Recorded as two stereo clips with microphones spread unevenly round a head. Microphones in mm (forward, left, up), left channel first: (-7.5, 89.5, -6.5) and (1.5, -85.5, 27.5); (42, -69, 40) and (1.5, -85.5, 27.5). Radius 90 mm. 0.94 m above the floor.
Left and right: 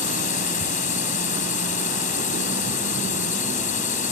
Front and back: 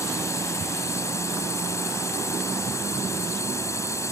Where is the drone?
45° left.